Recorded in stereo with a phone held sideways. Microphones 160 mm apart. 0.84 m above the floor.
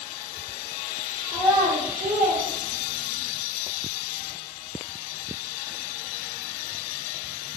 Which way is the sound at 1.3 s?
25° right (ahead or behind).